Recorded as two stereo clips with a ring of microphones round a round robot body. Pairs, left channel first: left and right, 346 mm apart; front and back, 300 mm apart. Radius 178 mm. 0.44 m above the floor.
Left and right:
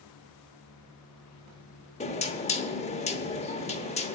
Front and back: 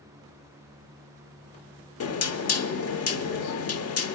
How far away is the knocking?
About 1.0 m.